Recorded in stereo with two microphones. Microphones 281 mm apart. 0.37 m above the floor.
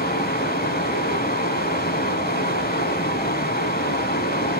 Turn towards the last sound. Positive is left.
turn(degrees=35)  # may be behind; listen again after turning